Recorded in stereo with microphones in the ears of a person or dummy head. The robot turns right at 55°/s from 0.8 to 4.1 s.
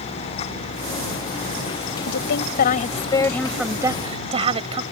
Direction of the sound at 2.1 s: 100° left.